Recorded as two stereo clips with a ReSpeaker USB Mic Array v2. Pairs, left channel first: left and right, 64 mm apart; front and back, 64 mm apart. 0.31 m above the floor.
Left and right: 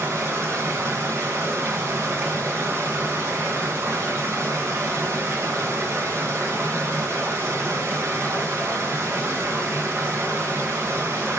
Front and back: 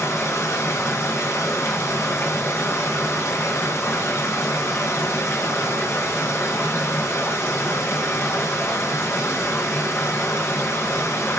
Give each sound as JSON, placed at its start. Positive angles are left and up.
{"t": 0.0, "sound": "running water", "azimuth_deg": -45, "distance_m": 2.5}